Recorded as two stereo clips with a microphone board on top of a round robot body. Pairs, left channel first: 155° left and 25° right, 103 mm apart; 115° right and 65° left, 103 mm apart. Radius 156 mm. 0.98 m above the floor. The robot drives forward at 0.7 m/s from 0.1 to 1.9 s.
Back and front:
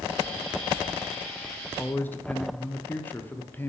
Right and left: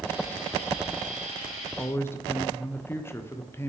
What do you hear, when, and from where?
1.8 s a man speaking: 140° right, 0.8 m; by 3.7 s 150° right, 0.8 m